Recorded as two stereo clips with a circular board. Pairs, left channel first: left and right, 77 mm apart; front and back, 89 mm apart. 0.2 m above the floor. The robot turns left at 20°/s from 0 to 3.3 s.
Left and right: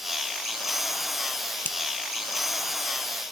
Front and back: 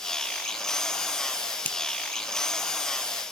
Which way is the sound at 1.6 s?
55° left.